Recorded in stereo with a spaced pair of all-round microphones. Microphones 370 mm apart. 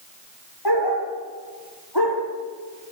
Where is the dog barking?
85° left, 7 m.